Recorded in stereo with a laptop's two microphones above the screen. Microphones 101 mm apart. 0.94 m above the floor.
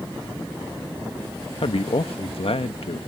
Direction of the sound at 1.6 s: 70° left (ahead or behind).